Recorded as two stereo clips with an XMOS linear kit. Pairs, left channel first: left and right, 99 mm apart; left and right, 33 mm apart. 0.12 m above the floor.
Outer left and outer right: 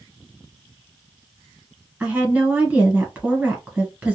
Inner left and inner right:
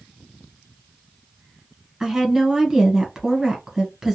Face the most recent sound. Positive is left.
turn(degrees=-15)  # may be behind; listen again after turning